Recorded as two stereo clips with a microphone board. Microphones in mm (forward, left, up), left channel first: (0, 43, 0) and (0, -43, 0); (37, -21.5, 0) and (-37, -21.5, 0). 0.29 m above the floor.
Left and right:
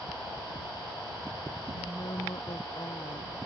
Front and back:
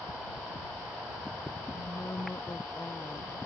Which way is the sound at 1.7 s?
55° left.